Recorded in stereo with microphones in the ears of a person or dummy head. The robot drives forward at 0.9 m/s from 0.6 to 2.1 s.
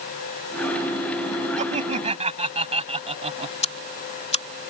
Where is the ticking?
35° left (ahead or behind).